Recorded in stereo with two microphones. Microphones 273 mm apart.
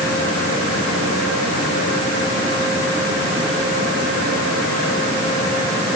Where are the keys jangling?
I don't hear keys jangling.